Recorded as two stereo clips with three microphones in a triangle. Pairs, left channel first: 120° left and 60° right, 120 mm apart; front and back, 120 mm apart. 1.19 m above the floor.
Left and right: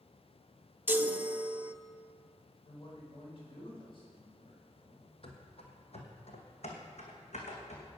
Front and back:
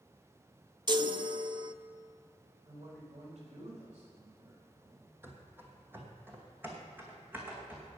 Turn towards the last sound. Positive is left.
turn(degrees=105)